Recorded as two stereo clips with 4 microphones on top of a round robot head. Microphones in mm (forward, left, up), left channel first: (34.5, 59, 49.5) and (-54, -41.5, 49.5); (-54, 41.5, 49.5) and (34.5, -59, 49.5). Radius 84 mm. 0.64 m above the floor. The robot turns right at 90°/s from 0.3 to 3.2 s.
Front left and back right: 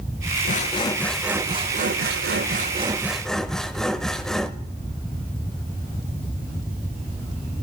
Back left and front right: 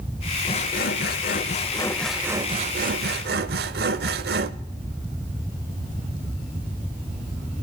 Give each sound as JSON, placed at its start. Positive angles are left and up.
{"t": 0.5, "sound": "sawing", "azimuth_deg": 75, "distance_m": 0.7}